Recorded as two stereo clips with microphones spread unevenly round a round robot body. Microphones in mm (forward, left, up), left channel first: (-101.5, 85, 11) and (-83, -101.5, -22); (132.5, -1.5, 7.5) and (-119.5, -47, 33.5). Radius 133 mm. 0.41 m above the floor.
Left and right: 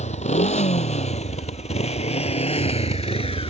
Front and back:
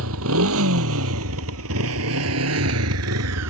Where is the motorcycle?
150° left; by 3.5 s 155° left.